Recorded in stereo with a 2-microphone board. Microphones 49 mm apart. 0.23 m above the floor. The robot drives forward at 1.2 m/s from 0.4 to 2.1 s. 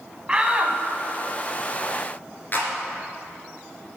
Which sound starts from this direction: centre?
A shout, at 0.3 s.